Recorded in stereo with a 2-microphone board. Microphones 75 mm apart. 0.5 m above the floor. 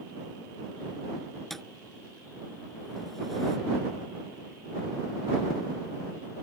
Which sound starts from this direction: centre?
A thud, at 1.5 s.